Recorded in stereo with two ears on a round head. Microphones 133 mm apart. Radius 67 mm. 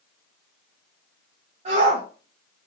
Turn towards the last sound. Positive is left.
turn(degrees=-45)  # may be behind; listen again after turning